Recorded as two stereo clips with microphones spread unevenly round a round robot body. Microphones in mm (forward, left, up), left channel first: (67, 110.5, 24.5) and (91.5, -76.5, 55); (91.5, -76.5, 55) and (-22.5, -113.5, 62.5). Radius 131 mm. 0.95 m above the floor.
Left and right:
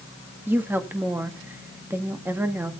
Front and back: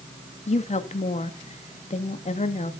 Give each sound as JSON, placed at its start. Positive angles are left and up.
{"t": 0.5, "sound": "a woman speaking", "azimuth_deg": 0, "distance_m": 2.0}